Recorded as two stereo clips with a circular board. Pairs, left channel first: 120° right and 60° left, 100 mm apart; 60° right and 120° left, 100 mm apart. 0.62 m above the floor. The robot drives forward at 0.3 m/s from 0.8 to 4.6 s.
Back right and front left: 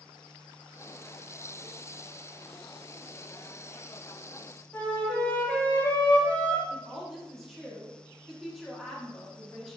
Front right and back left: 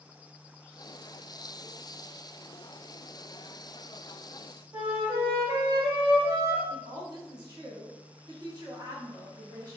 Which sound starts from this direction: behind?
A flute, at 4.7 s.